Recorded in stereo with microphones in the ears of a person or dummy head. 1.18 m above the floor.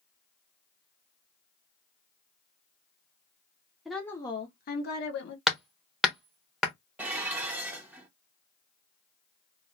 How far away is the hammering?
About 0.7 m.